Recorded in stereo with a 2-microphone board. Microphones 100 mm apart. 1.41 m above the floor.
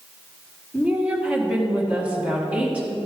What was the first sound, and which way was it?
A woman speaking, 15° right (ahead or behind).